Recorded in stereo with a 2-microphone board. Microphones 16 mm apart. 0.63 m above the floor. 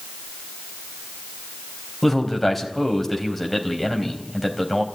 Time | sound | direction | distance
2.0 | a man speaking | 10° left (ahead or behind) | 4 m